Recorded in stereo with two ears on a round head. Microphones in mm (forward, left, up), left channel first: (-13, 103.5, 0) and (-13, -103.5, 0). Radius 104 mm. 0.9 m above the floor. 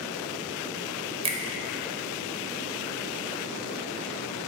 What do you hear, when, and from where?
1.2 s a finger snap: 25° right (ahead or behind), 0.5 m